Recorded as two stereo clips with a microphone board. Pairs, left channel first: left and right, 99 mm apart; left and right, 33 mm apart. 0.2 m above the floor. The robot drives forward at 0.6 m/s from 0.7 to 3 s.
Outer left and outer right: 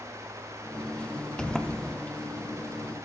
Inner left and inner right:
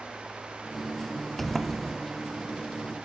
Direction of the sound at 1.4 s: 5° left (ahead or behind).